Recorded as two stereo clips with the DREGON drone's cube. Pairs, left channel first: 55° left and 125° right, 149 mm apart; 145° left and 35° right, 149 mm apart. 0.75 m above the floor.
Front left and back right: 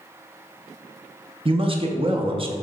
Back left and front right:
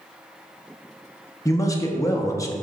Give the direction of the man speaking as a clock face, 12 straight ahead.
5 o'clock.